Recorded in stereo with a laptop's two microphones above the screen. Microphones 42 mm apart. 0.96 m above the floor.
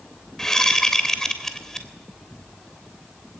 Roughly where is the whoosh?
Centre.